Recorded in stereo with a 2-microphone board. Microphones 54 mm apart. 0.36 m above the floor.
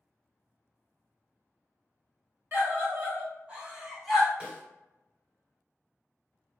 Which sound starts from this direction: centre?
A snare drum, at 4.4 s.